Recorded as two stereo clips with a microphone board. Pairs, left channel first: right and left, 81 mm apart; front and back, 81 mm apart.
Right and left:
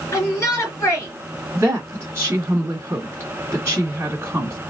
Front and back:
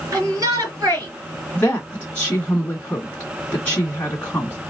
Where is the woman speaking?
65° left, 1.7 m.